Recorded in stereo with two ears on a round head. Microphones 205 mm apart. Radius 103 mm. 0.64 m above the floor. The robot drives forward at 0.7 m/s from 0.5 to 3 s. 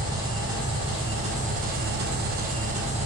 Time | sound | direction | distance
0.0 | an engine running | 20° right (ahead or behind) | 1.3 m